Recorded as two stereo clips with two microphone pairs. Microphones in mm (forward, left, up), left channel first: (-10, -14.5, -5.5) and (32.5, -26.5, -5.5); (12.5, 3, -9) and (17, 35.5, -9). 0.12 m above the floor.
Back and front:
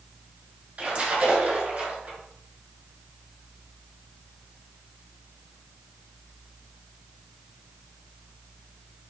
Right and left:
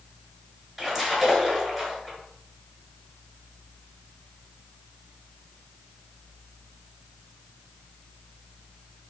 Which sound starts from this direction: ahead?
A splash, at 0.8 s.